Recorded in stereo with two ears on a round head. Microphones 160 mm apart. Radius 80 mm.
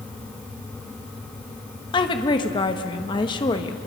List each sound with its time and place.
1.9 s a woman speaking: 25° left (ahead or behind), 1.1 m